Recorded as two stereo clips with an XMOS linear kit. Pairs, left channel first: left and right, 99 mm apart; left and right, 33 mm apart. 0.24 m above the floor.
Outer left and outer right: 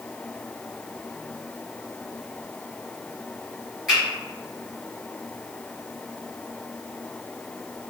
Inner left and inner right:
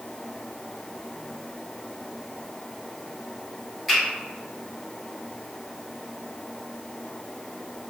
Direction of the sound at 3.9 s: Centre (ahead or behind).